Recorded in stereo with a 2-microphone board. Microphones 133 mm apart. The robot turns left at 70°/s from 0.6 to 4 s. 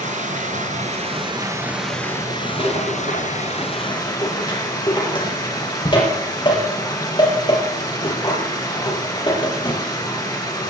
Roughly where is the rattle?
Left.